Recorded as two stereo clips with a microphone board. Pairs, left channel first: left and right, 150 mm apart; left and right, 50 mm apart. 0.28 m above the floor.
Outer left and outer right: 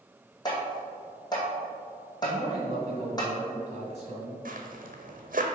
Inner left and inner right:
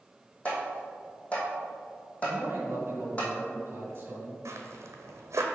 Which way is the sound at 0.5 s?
25° left (ahead or behind).